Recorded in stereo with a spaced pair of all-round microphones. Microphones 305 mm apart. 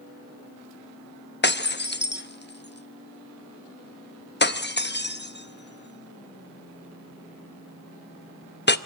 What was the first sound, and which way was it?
Breaking glass, 35° left (ahead or behind).